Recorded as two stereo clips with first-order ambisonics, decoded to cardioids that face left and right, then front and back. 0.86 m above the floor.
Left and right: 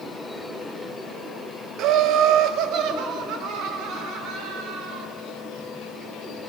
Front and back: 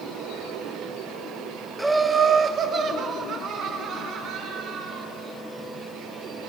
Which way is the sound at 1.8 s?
95° right.